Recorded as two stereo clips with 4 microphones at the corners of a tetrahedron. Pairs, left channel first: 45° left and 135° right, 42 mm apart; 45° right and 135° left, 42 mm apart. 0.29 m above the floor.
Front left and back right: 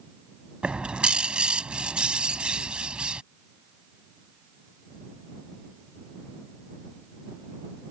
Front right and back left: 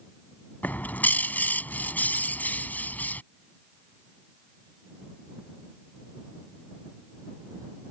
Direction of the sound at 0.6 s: 70° right.